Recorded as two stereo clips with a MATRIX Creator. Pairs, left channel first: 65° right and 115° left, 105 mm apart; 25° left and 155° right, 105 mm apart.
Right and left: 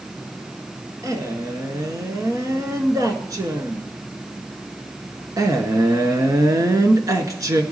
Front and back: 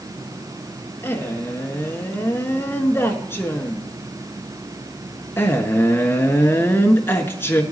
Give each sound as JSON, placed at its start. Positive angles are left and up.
{"t": 1.0, "sound": "a man speaking", "azimuth_deg": 80, "distance_m": 1.3}